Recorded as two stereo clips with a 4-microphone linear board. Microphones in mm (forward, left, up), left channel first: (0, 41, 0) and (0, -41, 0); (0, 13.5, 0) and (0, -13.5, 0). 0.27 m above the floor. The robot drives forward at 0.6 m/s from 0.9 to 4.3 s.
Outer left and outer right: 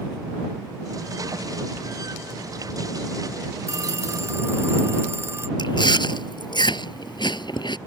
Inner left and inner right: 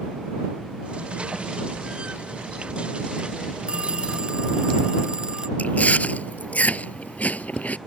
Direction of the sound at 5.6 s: 70° left (ahead or behind).